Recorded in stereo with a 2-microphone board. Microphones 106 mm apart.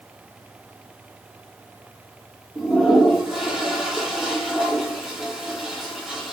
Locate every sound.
2.5 s a toilet flushing: 5° right (ahead or behind), 2 m